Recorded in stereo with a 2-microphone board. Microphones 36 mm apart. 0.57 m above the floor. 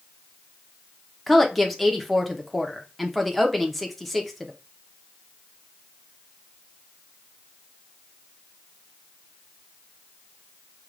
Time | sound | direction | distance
1.3 | a woman speaking | centre (ahead or behind) | 0.8 m